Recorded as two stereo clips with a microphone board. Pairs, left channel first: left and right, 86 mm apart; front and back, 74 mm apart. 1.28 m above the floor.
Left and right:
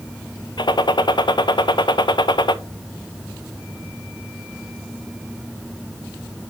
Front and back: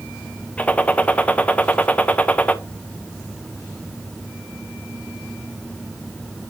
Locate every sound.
0.6 s a gunshot: 70° left, 0.5 m